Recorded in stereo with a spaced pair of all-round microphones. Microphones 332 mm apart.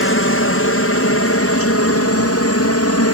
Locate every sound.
0.0 s a helicopter: 40° left (ahead or behind); by 3.1 s 50° left (ahead or behind)